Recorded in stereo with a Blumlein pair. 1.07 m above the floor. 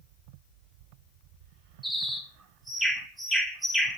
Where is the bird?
5° right, 1.2 m.